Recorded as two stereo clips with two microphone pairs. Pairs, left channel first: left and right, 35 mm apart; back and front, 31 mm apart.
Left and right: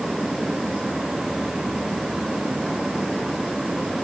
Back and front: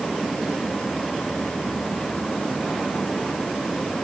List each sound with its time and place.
Only background noise.